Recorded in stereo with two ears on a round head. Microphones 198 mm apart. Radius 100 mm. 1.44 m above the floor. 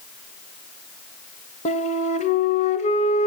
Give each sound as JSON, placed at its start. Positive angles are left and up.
{"t": 1.6, "sound": "a flute", "side_deg": 35, "distance_m": 1.4}